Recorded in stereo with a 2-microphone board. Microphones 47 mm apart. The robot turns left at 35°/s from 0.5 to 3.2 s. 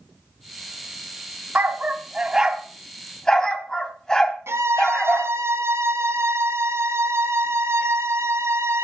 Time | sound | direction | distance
1.6 | a dog barking | 40° right (ahead or behind) | 2 m
4.5 | a violin | 70° right (ahead or behind) | 2.5 m